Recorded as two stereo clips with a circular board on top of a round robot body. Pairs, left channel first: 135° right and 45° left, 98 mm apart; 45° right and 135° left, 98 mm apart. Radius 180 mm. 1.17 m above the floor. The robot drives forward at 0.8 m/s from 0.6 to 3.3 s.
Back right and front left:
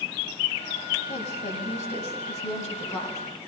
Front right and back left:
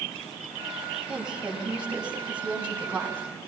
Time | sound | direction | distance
1.1 | a woman speaking | 140° right | 6 m